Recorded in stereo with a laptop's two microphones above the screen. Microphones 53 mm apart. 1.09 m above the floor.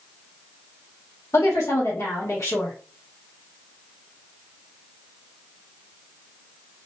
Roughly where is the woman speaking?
Left.